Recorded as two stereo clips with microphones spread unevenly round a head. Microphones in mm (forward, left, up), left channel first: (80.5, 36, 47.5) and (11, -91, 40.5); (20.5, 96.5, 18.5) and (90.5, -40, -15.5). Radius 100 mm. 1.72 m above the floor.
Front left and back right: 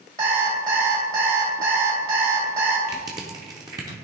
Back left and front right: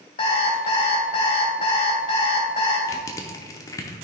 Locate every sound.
0.2 s an alarm clock: 175° left, 2.5 m
2.9 s crushing: 170° left, 0.7 m